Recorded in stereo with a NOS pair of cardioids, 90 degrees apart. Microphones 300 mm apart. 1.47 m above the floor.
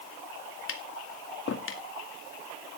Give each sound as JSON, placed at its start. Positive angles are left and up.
{"t": 0.7, "sound": "tapping", "azimuth_deg": 45, "distance_m": 2.0}